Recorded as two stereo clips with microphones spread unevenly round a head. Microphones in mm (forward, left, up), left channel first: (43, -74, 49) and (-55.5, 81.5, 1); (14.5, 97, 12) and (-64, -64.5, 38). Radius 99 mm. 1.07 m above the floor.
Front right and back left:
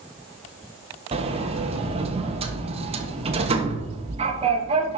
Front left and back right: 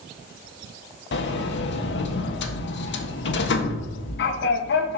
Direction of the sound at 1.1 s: 70° left.